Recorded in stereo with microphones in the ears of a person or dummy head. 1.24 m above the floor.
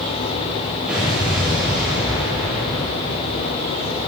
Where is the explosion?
5° right (ahead or behind), 6.5 m.